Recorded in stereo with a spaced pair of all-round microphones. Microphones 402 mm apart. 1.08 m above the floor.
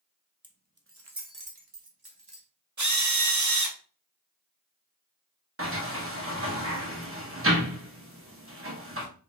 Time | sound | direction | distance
0.4 | keys jangling | 10° right (ahead or behind) | 0.6 m
2.8 | a drill | 45° right (ahead or behind) | 0.7 m
5.6 | a sliding door | 30° right (ahead or behind) | 0.9 m